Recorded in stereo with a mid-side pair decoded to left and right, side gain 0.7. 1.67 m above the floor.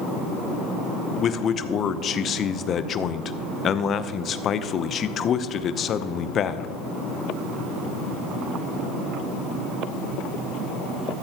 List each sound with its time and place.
1.2 s a man speaking: 40° left, 0.7 m